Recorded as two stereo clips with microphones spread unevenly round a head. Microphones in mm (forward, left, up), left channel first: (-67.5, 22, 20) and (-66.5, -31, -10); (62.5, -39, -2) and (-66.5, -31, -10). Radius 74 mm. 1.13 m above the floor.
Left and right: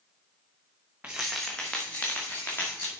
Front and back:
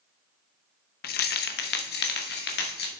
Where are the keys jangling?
10° right, 0.8 m; by 3.0 s 15° left, 2 m.